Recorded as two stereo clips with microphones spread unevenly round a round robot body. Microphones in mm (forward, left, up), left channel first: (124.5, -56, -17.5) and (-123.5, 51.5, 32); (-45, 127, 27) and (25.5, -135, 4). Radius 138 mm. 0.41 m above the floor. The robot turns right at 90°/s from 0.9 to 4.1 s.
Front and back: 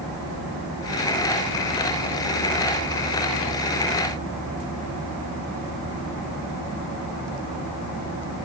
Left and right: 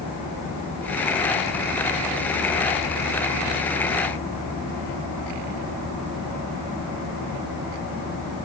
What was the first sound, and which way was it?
Only background noise.